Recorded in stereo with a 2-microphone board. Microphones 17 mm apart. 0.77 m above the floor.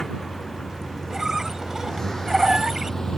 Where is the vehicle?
35° left (ahead or behind); by 3.2 s 45° left (ahead or behind).